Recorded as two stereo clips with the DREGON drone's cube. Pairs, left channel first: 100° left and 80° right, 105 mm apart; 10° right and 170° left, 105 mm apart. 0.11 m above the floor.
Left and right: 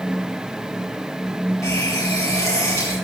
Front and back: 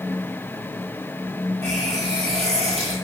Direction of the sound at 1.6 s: 160° left.